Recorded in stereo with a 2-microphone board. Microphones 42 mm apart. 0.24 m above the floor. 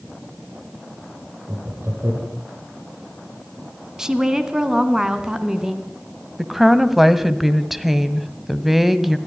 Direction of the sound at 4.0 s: 15° right (ahead or behind).